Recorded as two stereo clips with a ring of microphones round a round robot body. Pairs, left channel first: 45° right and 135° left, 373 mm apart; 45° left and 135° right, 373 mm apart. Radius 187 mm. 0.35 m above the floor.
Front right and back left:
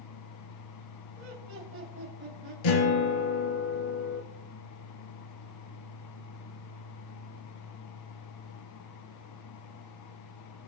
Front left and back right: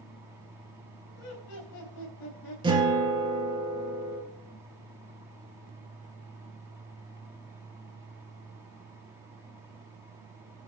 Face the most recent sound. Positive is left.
turn(degrees=-55)